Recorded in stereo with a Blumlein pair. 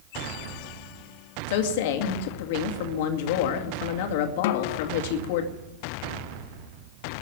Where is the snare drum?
50° left, 0.8 m.